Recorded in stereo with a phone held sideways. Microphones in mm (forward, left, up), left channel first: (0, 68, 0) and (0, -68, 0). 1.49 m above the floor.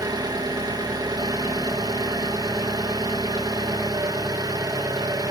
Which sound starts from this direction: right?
An engine running, at 0.0 s.